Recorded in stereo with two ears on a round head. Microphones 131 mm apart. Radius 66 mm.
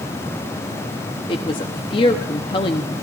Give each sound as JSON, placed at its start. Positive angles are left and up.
{"t": 1.3, "sound": "a woman speaking", "side_deg": 35, "distance_m": 0.8}